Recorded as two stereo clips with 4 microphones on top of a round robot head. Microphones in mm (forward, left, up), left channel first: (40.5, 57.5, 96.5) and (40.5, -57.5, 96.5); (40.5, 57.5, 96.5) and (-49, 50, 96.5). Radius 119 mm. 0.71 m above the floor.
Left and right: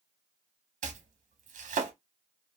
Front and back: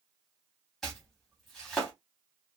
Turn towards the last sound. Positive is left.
turn(degrees=-85)